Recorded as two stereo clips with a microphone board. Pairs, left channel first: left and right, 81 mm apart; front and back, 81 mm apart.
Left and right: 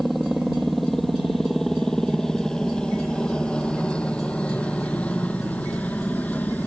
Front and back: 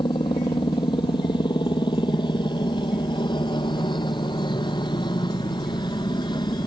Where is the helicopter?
Straight ahead; by 6.7 s 20° left.